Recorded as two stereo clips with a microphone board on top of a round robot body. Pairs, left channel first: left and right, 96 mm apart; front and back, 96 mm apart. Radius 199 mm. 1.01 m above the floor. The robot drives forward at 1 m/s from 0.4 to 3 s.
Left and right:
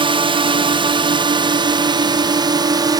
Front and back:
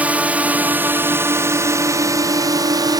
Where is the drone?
105° right; by 3.0 s 135° right.